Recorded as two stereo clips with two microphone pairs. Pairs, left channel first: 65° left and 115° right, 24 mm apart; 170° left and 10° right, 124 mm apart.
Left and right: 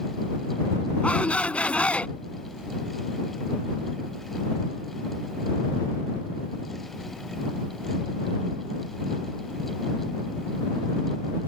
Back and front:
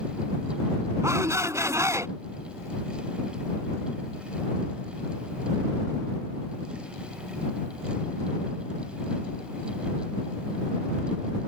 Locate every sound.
1.0 s a shout: 55° left